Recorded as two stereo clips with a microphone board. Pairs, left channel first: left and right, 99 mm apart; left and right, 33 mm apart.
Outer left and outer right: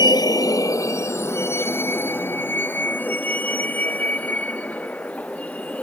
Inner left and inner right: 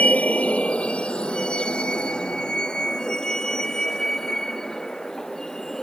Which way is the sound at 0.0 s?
50° left (ahead or behind).